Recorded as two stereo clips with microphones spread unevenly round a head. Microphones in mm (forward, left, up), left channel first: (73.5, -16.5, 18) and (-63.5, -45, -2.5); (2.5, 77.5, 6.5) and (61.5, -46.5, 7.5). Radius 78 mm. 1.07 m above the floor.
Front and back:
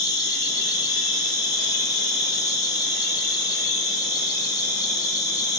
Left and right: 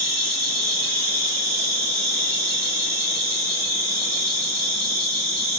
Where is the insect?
55° right, 2 m.